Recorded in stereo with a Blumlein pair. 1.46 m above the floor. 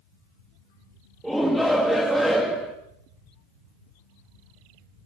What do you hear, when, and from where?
1.2 s a shout: 5° right, 1.9 m